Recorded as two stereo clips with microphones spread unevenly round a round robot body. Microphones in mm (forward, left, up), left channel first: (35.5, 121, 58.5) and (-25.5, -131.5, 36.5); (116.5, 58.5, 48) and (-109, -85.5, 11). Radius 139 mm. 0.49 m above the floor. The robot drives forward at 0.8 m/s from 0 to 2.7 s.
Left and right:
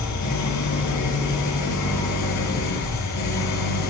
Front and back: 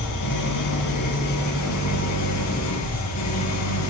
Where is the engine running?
55° left, 9 m; by 3.9 s 65° left, 8 m.